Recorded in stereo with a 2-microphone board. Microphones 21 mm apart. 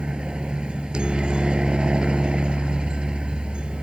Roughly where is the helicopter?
Right.